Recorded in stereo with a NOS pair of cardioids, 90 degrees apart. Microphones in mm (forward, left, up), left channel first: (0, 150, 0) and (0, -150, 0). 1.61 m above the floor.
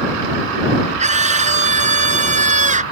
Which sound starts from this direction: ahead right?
A scream, at 1.0 s.